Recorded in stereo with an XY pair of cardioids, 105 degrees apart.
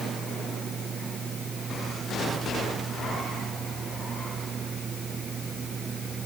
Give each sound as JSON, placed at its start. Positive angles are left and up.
{"t": 0.0, "sound": "a fan", "azimuth_deg": -45}